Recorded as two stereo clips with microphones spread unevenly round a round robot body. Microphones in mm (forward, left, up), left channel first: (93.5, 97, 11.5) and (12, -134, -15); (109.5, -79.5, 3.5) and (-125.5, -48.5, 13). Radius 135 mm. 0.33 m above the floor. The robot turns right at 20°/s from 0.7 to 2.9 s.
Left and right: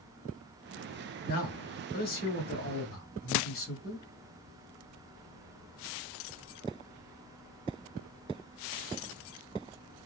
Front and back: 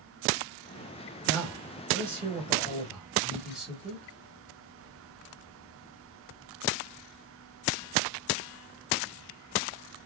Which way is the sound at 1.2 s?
45° left.